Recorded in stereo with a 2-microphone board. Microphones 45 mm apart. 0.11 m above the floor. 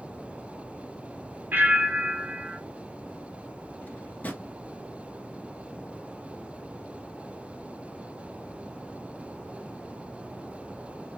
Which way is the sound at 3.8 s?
40° left (ahead or behind).